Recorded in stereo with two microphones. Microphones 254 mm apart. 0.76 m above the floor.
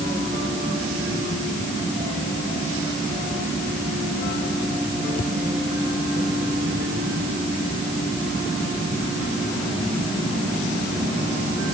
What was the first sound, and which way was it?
Only background noise.